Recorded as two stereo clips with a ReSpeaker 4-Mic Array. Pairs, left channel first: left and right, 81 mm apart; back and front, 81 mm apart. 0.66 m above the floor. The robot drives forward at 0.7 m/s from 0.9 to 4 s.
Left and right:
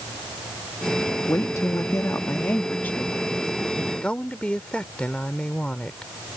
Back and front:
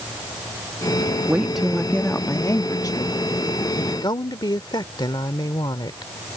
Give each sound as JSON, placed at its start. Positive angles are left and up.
{"t": 1.3, "sound": "a woman speaking", "azimuth_deg": 60}